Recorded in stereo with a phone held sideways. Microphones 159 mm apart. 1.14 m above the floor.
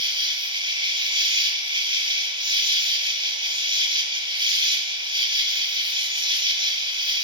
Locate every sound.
0.0 s an insect: 30° right (ahead or behind), 1.1 m